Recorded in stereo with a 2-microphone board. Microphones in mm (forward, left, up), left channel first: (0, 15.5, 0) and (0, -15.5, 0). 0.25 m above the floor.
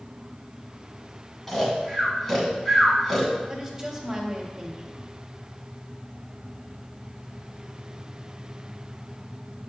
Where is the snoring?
5° left (ahead or behind), 1.6 m.